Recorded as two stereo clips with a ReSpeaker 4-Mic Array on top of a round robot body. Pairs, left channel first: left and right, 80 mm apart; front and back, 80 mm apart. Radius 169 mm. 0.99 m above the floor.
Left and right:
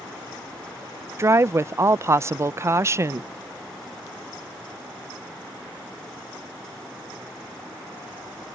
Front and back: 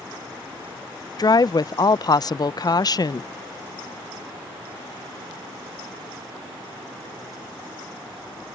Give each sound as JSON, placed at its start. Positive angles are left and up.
{"t": 1.2, "sound": "a woman speaking", "azimuth_deg": -35}